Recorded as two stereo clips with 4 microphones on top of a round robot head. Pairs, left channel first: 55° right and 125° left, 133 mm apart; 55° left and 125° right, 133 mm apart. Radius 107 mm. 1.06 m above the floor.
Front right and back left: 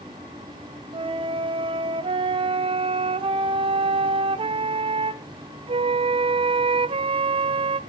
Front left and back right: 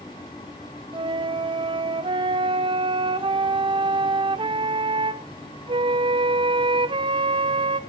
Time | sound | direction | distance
0.9 | a flute | straight behind | 1.1 m